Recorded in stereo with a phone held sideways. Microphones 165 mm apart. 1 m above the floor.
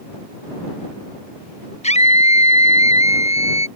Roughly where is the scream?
Left.